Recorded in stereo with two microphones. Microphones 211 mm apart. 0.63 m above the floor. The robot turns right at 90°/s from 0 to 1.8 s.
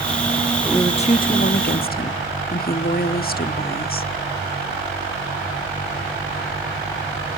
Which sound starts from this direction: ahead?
A woman speaking, at 0.6 s.